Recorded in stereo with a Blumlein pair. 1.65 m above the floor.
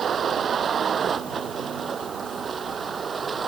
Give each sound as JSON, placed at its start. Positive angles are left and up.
{"t": 0.0, "sound": "a vehicle", "azimuth_deg": -20}